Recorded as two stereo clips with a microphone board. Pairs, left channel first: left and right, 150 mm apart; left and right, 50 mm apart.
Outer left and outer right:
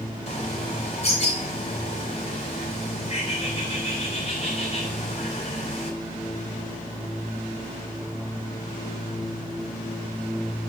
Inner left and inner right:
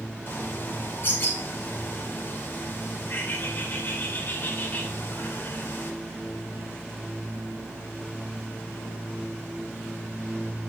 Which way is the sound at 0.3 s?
45° left (ahead or behind).